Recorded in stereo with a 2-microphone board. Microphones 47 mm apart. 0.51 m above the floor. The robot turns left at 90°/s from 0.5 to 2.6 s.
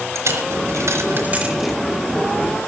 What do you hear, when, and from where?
0.1 s a dropped coin: 70° right (ahead or behind), 3.5 m; by 1.8 s 5° left (ahead or behind), 3.5 m